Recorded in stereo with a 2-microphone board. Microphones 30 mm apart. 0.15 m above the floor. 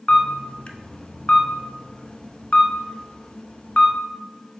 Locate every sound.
0.1 s a camera shutter: 45° left (ahead or behind), 0.6 m